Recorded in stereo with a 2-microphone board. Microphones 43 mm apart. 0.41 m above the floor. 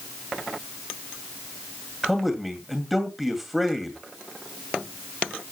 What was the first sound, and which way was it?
A man speaking, 5° right (ahead or behind).